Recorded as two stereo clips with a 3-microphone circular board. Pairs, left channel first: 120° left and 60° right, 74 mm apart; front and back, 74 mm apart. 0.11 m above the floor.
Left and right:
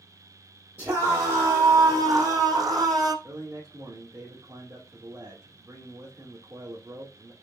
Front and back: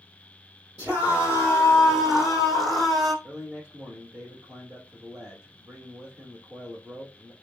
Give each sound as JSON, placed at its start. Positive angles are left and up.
{"t": 0.8, "sound": "a scream", "azimuth_deg": -115, "distance_m": 4.0}
{"t": 3.2, "sound": "a man speaking", "azimuth_deg": -110, "distance_m": 4.0}